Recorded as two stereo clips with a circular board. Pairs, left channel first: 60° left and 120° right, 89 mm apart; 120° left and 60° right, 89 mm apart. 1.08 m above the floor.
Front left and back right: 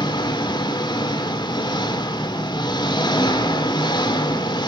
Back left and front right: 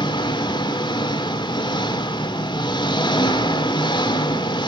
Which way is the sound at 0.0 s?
90° left.